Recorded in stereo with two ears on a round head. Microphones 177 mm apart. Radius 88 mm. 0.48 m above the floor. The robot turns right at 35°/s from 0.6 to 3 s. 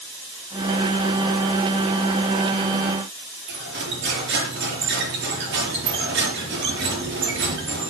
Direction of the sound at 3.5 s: 60° right (ahead or behind).